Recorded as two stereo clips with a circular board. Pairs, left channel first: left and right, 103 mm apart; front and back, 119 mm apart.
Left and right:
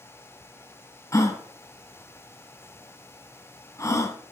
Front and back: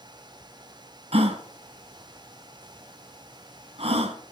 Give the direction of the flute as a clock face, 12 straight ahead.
No flute in this recording.